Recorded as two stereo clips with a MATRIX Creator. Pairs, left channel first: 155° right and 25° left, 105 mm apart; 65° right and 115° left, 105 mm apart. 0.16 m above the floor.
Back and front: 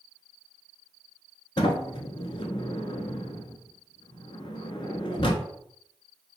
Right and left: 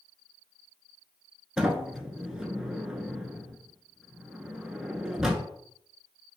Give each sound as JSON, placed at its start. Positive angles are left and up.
{"t": 1.6, "sound": "a sliding door", "azimuth_deg": -165, "distance_m": 0.5}